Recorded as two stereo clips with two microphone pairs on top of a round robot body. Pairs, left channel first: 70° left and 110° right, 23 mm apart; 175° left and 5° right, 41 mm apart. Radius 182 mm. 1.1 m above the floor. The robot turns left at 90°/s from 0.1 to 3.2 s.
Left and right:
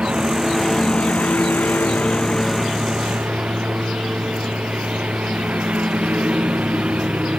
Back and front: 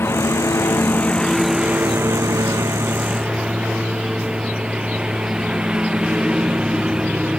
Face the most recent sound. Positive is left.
turn(degrees=-75)